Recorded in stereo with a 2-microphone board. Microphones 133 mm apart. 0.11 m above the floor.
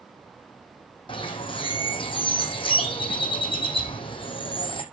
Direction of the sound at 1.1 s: 40° left (ahead or behind).